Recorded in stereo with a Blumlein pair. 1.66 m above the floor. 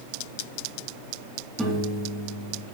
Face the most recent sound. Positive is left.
turn(degrees=0)